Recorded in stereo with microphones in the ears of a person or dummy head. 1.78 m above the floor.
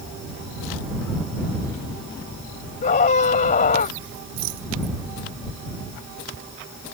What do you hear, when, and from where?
2.8 s a scream: 40° left (ahead or behind)
4.4 s a rattle: 80° right